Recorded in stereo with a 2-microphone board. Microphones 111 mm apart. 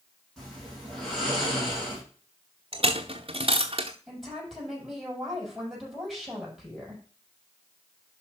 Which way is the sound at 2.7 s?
55° right (ahead or behind).